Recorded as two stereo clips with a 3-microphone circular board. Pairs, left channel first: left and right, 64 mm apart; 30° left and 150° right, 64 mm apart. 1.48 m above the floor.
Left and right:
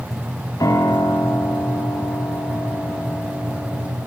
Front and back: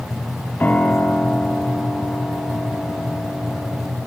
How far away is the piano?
About 4 m.